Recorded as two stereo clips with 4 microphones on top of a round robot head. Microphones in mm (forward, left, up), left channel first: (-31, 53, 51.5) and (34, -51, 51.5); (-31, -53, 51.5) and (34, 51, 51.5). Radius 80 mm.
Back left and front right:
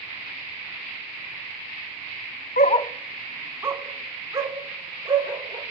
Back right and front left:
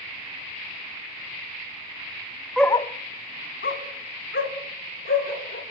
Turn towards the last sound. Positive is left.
turn(degrees=-120)